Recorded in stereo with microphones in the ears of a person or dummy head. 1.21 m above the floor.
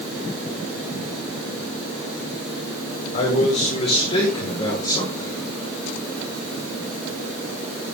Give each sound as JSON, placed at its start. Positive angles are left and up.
{"t": 3.1, "sound": "a man speaking", "side_deg": 40, "distance_m": 4.5}